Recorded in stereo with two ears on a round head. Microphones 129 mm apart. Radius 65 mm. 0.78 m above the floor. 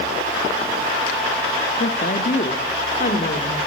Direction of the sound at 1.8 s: 55° left (ahead or behind).